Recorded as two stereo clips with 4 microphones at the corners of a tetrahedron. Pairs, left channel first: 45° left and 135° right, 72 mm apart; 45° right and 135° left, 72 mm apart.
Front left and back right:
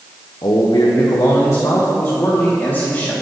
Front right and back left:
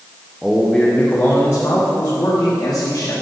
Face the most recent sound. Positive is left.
turn(degrees=-15)